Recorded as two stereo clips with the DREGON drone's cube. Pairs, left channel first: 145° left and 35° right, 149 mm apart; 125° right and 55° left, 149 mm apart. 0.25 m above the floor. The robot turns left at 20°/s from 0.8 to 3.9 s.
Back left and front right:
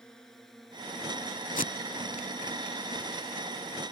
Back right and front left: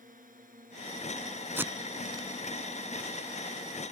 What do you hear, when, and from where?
0.0 s a drone: 60° left; by 3.9 s 15° right
1.6 s tape being pulled: 130° left; by 2.3 s 115° left